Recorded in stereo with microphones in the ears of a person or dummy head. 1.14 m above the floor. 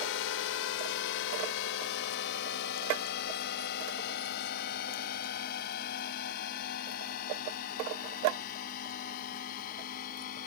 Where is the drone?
70° left (ahead or behind); by 10.5 s 50° left (ahead or behind).